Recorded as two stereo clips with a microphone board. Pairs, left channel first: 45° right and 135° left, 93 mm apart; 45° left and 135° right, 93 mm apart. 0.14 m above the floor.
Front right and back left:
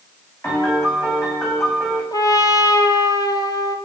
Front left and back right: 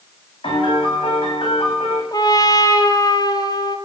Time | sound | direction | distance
0.4 | a piano | 15° left | 9.5 m
2.1 | a trumpet | straight ahead | 1.8 m